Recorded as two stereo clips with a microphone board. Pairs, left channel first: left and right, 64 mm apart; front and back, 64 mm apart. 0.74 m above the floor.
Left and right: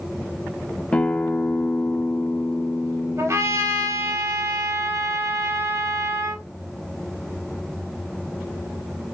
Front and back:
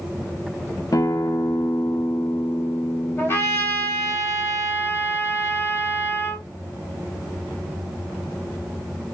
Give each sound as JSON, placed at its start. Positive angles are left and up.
{"t": 0.9, "sound": "a guitar", "azimuth_deg": 20, "distance_m": 0.5}
{"t": 3.2, "sound": "a trumpet", "azimuth_deg": -50, "distance_m": 3.5}